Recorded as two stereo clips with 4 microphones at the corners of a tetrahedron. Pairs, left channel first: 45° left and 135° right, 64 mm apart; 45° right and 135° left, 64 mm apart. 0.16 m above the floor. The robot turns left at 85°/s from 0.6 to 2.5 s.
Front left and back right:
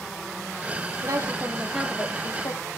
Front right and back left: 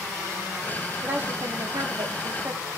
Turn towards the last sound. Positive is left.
turn(degrees=75)